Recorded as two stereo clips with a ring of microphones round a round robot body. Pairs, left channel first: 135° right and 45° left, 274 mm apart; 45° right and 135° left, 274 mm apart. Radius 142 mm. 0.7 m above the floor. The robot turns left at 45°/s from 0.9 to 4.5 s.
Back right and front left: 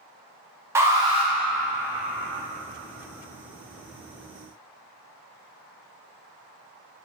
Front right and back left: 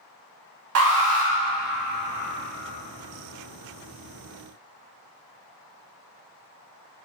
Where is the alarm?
125° left, 1.1 m; by 1.3 s 105° left, 1.1 m.